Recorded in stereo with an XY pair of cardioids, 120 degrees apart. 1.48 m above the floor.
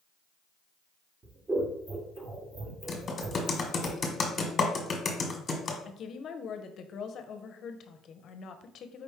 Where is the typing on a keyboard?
35° left, 1.3 m.